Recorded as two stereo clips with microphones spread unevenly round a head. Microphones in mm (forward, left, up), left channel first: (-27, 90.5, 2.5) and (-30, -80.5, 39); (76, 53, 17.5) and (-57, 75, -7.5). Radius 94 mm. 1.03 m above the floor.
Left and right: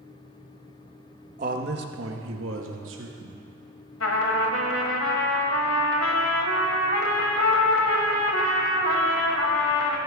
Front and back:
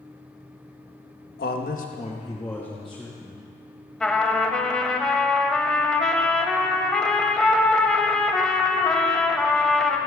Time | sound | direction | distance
1.4 | a man speaking | 35° right | 1.1 m
4.0 | a trumpet | 70° left | 1.6 m